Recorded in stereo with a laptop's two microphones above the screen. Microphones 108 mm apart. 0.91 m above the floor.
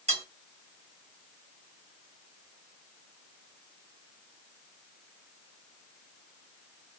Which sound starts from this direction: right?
Cutlery clinking, at 0.1 s.